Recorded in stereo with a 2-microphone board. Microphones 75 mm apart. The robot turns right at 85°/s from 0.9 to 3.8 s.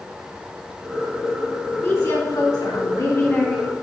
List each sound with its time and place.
1.8 s a woman speaking: 35° left, 1.6 m; by 3.7 s 170° right, 1.6 m